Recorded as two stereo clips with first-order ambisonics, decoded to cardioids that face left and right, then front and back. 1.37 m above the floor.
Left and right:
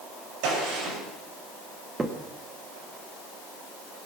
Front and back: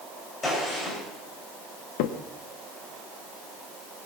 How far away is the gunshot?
About 6 m.